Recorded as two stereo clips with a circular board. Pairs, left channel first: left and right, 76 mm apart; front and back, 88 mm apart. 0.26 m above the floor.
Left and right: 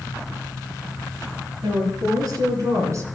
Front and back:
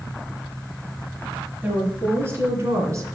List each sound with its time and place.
1.6 s a woman speaking: 110° right, 4.5 m; by 3.1 s 130° right, 2.5 m